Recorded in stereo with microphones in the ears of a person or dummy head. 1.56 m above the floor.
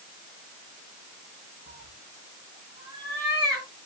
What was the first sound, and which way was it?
A cat meowing, 30° right (ahead or behind).